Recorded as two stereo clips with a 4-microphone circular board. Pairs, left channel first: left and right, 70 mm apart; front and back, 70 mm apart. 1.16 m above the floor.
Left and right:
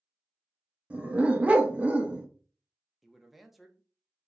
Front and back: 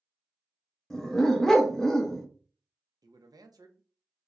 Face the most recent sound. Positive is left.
turn(degrees=180)